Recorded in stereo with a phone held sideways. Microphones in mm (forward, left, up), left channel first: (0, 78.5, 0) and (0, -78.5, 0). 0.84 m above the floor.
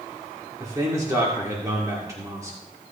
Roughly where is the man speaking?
Right.